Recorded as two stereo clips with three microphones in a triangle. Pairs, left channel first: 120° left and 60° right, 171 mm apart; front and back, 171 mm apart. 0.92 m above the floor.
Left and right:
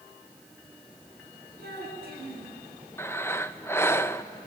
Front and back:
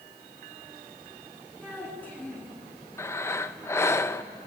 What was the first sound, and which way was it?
A child speaking, 80° right.